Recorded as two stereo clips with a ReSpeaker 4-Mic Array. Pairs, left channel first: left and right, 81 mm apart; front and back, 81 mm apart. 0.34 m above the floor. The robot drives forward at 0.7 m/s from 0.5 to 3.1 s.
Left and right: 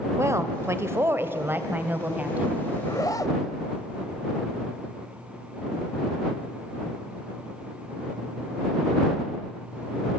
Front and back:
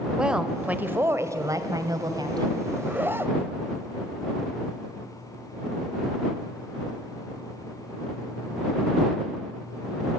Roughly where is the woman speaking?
Right.